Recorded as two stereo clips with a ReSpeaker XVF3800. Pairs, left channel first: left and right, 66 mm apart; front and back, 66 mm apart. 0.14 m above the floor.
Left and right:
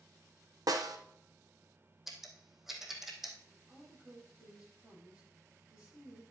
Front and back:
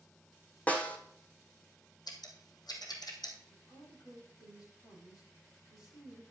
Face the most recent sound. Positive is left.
turn(degrees=-15)